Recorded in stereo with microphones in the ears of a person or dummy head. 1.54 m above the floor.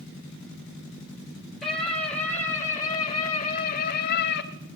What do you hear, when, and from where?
1.6 s a scream: 5° left (ahead or behind), 4 m; by 4.5 s 70° left (ahead or behind), 2.5 m